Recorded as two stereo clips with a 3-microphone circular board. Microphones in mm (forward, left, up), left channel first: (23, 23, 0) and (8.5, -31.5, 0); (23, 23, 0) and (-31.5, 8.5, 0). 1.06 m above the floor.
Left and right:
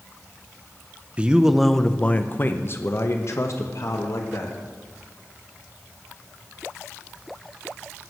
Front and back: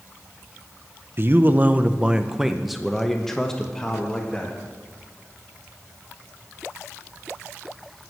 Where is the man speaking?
160° right, 0.7 m; by 4.6 s 90° left, 1.9 m.